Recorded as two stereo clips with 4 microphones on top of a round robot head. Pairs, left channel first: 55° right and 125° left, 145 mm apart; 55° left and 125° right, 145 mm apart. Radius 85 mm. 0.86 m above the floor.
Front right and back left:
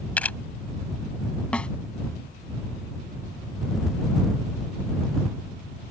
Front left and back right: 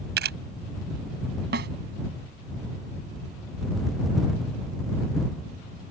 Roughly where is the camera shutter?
Behind right.